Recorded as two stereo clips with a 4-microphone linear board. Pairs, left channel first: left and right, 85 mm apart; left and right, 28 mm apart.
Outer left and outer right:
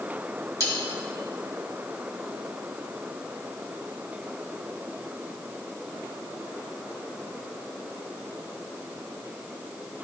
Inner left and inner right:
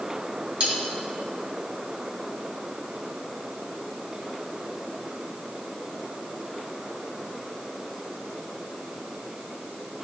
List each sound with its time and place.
0.6 s cutlery clinking: 40° right (ahead or behind), 2.5 m